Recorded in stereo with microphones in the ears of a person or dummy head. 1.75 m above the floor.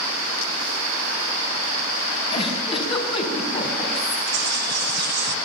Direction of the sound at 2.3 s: 35° left (ahead or behind).